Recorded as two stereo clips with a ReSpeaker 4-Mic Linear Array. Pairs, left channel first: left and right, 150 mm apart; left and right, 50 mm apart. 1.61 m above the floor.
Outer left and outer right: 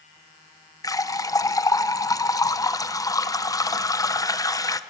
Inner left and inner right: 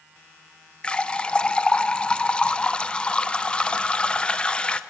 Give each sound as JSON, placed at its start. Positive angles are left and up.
{"t": 0.8, "sound": "a running tap", "side_deg": 20, "distance_m": 0.6}